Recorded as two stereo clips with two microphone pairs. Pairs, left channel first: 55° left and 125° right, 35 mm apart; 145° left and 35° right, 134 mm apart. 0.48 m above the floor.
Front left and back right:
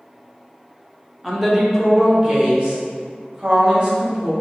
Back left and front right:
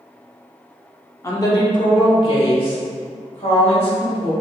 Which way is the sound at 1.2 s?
160° left.